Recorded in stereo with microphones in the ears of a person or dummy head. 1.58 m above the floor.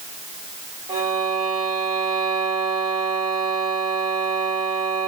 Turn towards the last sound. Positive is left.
turn(degrees=-25)  # may be behind; listen again after turning